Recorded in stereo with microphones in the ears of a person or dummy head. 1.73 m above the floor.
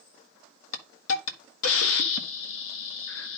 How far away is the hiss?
About 1.7 m.